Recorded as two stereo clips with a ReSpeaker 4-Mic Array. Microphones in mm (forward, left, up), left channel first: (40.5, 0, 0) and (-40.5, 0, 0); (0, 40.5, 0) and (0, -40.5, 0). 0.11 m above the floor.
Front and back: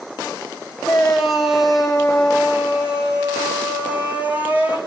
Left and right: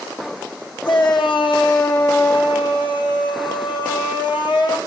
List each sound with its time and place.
0.8 s a shout: 90° left, 6.5 m; by 4.8 s 110° left, 7.5 m